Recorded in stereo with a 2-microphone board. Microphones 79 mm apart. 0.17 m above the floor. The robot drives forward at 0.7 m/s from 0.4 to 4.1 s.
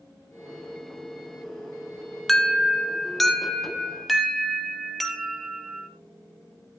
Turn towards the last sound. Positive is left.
turn(degrees=0)  # may be behind; listen again after turning